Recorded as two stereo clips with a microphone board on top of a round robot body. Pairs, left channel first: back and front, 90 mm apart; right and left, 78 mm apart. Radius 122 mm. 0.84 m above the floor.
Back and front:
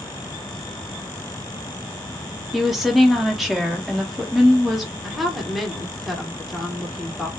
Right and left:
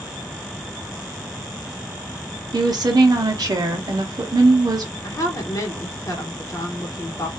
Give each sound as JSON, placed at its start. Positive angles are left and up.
{"t": 2.5, "sound": "a woman speaking", "azimuth_deg": 90, "distance_m": 0.7}
{"t": 5.0, "sound": "a woman speaking", "azimuth_deg": -90, "distance_m": 1.1}